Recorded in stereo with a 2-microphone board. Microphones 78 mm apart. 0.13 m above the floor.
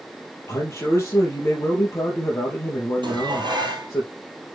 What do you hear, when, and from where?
0.5 s a man speaking: 35° left (ahead or behind), 3.5 m
3.0 s dishes clattering: 70° right (ahead or behind), 2 m